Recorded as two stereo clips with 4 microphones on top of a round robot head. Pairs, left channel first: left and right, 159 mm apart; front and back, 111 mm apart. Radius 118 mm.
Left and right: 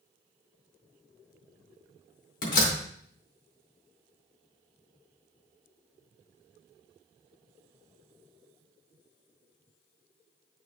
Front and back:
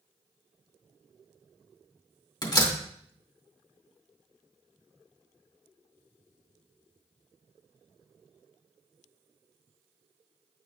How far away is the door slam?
About 2.5 m.